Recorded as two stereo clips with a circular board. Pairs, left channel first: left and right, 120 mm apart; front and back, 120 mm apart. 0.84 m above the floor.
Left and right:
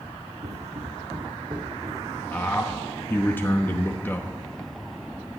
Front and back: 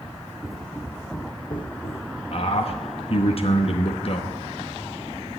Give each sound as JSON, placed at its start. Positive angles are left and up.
{"t": 0.4, "sound": "footsteps", "azimuth_deg": -90, "distance_m": 1.9}
{"t": 2.3, "sound": "a man speaking", "azimuth_deg": 20, "distance_m": 0.9}